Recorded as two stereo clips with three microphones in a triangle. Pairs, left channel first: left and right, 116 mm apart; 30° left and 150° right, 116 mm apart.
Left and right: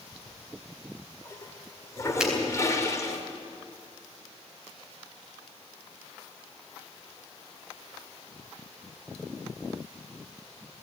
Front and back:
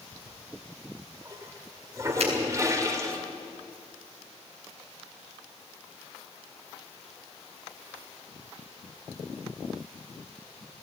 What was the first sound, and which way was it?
A toilet flushing, 150° left.